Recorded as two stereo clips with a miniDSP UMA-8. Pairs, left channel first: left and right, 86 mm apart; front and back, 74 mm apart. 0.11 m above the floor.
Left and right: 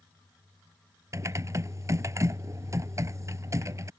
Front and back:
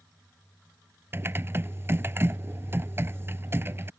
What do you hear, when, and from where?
1.1 s typing on a keyboard: 130° right